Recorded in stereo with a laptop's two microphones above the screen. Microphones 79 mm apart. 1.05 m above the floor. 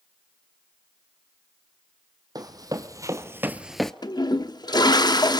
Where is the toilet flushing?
60° left (ahead or behind), 0.8 m.